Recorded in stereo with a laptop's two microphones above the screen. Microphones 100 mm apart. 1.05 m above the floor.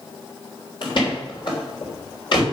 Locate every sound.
0.8 s a door slam: 55° left (ahead or behind), 3 m